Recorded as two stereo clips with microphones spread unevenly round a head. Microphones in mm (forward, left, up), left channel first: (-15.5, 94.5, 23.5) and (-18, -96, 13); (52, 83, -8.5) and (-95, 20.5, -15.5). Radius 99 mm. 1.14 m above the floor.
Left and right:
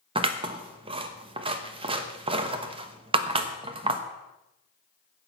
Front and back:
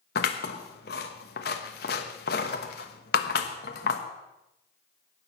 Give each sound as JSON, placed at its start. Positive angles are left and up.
{"t": 0.1, "sound": "scissors", "azimuth_deg": -25, "distance_m": 1.0}